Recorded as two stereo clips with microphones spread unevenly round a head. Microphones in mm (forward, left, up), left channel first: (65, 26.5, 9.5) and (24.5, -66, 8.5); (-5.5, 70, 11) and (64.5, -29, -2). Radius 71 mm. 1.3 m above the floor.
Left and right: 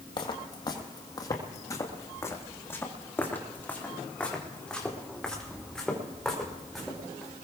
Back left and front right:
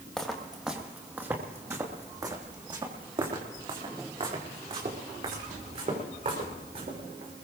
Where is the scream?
I don't hear a scream.